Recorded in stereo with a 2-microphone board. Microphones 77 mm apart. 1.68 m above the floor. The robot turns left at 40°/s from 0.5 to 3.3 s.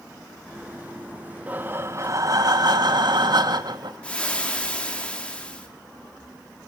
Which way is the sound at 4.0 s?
15° left (ahead or behind).